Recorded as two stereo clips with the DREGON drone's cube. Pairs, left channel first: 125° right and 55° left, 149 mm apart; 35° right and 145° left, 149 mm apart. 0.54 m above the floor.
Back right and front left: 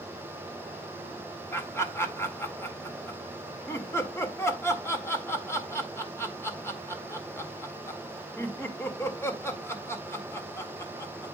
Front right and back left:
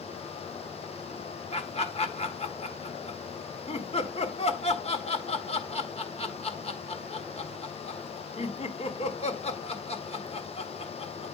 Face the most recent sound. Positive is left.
turn(degrees=-55)